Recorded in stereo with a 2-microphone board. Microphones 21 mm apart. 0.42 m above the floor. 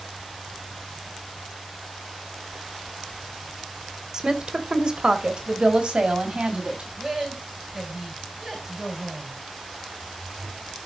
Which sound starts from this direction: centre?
A woman speaking, at 7.0 s.